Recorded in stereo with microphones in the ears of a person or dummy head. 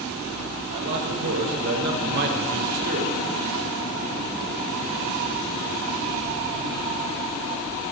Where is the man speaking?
65° right (ahead or behind), 6 m; by 3.2 s 45° right (ahead or behind), 3 m.